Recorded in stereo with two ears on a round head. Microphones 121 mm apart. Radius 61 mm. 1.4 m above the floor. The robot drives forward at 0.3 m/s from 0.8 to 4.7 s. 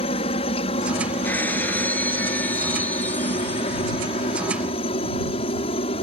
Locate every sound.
0.0 s a helicopter: 45° left (ahead or behind)
1.2 s breaking glass: 15° left (ahead or behind); by 4.0 s 10° left (ahead or behind)